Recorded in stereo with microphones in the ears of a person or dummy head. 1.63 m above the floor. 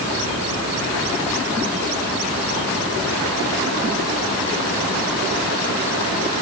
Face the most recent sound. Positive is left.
No sound to turn to.